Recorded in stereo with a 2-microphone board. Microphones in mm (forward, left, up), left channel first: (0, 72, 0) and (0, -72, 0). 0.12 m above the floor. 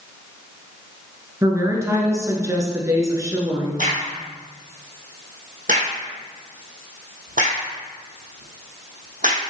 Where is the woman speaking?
20° right (ahead or behind), 1.5 m.